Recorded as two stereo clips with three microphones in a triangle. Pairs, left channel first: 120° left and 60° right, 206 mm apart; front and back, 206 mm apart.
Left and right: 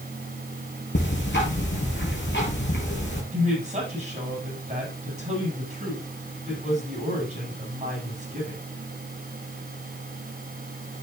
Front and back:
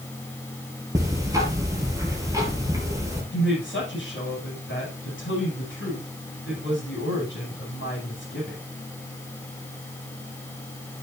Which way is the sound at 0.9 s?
105° left.